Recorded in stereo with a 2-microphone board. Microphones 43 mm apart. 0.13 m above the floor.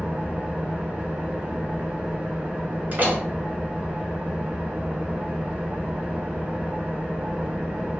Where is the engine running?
30° right (ahead or behind), 1.6 m.